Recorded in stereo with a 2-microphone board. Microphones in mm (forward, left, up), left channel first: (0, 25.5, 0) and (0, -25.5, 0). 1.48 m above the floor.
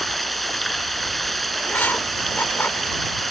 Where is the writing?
40° left (ahead or behind).